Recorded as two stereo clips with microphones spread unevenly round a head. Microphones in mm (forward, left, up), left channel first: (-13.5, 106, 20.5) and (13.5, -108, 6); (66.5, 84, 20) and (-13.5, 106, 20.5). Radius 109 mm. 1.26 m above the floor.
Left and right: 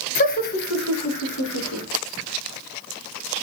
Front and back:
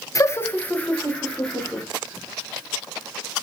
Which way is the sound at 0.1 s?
40° left.